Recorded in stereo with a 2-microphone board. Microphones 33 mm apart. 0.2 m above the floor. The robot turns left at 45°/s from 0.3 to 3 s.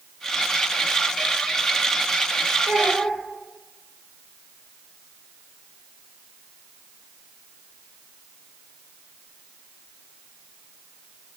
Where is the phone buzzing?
No phone buzzing in this recording.